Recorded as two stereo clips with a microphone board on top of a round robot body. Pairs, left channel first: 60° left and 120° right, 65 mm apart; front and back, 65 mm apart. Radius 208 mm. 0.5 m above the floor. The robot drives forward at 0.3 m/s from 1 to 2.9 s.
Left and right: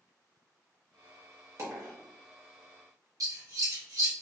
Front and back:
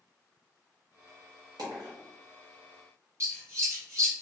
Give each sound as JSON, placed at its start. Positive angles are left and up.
{"t": 1.6, "sound": "a dropped coin", "azimuth_deg": -160, "distance_m": 1.0}
{"t": 3.2, "sound": "scissors", "azimuth_deg": -140, "distance_m": 1.6}